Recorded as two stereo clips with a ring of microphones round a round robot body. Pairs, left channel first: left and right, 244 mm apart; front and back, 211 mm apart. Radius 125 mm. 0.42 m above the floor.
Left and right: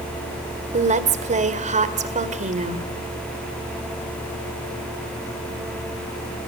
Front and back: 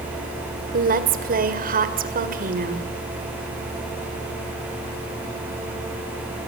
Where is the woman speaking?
145° right, 2 m.